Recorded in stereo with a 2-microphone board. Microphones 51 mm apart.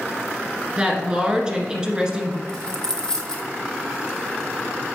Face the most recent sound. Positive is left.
turn(degrees=15)  # may be behind; listen again after turning